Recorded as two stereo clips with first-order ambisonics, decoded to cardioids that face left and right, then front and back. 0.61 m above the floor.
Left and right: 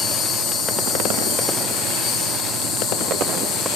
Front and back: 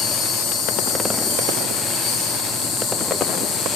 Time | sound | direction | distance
0.0 | an insect | 40° left | 2.5 m